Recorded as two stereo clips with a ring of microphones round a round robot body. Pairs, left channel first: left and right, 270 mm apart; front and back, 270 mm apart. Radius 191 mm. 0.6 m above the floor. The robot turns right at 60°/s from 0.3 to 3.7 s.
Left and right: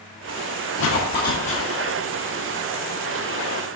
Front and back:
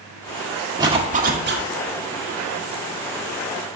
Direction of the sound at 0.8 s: 110° left.